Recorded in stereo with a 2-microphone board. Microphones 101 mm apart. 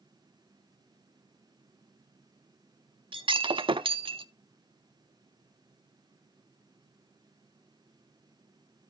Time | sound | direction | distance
3.1 | breaking glass | 55° right (ahead or behind) | 0.8 m